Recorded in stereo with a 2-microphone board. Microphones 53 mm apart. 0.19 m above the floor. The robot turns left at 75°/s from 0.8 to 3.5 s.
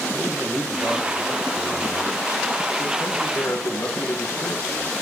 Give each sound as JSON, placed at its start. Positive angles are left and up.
{"t": 0.1, "sound": "a man speaking", "azimuth_deg": -95, "distance_m": 3.0}